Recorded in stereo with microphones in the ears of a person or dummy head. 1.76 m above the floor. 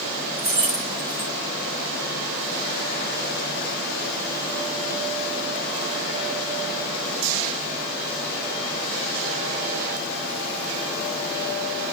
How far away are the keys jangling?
About 1.1 m.